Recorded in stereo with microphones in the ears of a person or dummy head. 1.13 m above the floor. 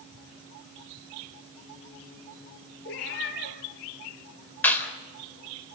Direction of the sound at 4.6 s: 10° left (ahead or behind).